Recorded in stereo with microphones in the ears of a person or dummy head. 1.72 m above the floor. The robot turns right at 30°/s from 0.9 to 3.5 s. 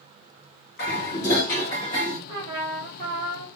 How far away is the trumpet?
About 1.2 m.